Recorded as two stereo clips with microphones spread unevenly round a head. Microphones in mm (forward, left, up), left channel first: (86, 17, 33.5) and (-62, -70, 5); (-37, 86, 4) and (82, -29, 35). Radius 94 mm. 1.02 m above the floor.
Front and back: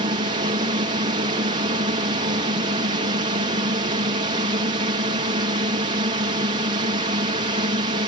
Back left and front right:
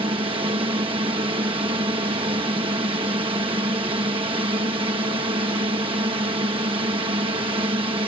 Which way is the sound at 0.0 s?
105° right.